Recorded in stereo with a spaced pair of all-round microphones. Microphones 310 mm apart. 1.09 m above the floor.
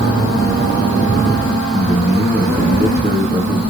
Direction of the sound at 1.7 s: 35° right (ahead or behind).